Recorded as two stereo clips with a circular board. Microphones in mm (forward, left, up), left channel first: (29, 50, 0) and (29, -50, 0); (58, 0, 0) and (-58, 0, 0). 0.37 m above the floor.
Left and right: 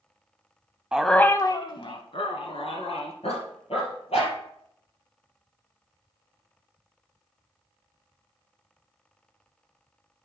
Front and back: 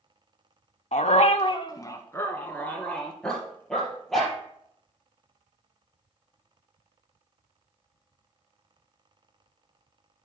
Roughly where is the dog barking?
Ahead.